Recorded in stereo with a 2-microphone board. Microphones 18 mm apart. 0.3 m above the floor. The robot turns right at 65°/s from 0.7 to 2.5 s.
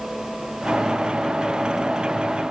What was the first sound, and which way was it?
Only background noise.